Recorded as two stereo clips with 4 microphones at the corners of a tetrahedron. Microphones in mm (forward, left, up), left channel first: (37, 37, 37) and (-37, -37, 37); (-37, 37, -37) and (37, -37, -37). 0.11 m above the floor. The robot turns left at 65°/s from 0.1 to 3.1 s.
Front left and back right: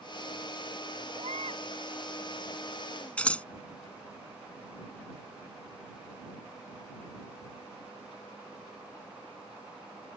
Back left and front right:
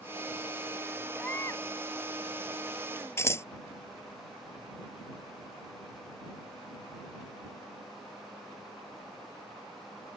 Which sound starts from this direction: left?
Scissors, at 3.2 s.